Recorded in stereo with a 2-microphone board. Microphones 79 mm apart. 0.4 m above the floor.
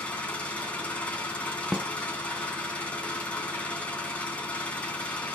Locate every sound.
0.0 s an engine running: 15° left (ahead or behind), 2.5 m
1.7 s a snare drum: 5° right (ahead or behind), 0.8 m